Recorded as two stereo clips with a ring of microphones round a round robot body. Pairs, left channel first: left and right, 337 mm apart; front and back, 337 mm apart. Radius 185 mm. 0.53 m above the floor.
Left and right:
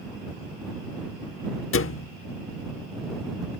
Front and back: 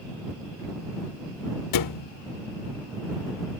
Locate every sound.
1.7 s a thud: 35° left